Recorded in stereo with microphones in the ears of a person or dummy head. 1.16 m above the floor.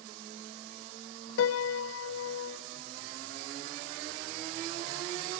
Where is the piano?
85° left, 0.7 m.